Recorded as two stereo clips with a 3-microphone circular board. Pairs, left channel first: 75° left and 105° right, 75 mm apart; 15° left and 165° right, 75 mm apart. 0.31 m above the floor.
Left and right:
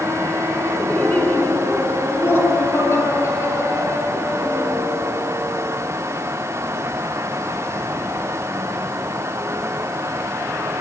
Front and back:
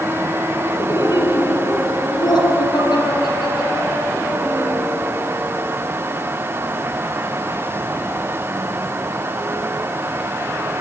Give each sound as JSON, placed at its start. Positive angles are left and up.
{"t": 0.8, "sound": "laughter", "azimuth_deg": 0, "distance_m": 3.0}